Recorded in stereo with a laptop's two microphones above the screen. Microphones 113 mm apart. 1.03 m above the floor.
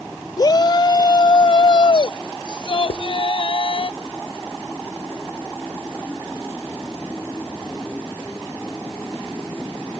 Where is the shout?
35° left (ahead or behind); by 3.9 s 50° left (ahead or behind).